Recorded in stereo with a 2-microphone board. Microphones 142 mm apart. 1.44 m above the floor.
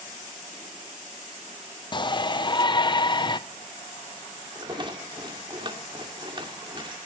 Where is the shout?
35° left (ahead or behind), 0.7 m.